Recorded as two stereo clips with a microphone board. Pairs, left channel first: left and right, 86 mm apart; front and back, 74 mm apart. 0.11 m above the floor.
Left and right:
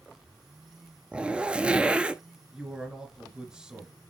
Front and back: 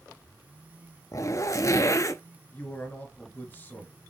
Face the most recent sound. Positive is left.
turn(degrees=-20)